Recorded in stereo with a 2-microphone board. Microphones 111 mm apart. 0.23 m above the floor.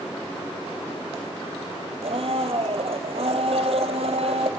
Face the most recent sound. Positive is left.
turn(degrees=-65)  # may be behind; listen again after turning